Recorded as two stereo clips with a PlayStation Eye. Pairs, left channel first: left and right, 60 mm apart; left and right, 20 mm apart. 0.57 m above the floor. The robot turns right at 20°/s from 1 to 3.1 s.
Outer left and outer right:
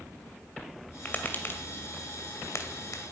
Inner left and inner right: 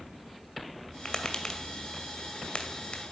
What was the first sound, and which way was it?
Tapping, 25° left (ahead or behind).